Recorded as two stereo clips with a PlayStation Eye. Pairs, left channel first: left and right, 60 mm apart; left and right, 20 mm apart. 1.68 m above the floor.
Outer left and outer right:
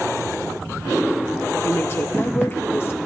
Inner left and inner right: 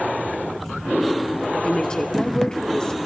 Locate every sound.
1.6 s a woman speaking: 40° left (ahead or behind), 1.1 m